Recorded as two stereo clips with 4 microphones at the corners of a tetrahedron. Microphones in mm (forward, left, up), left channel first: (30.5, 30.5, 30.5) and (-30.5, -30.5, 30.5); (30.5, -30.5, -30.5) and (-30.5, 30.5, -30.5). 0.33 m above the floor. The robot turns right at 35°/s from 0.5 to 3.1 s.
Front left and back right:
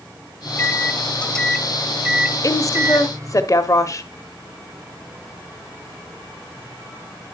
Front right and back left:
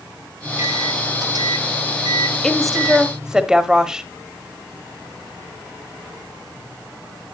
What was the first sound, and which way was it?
A microwave, 95° left.